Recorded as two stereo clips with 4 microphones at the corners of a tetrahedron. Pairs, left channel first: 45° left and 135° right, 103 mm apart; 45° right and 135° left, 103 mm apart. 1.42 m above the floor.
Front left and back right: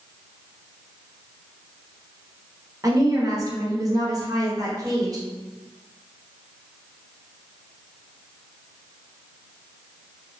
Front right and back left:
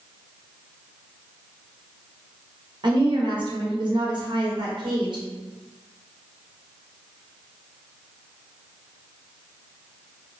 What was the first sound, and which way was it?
A woman speaking, 175° left.